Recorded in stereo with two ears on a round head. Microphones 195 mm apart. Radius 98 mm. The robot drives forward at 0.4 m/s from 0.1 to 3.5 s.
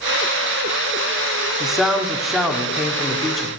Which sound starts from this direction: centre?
A man speaking, at 1.6 s.